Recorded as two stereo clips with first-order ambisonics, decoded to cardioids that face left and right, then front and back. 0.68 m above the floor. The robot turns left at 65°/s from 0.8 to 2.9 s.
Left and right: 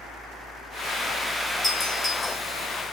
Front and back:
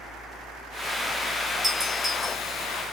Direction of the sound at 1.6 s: 125° left.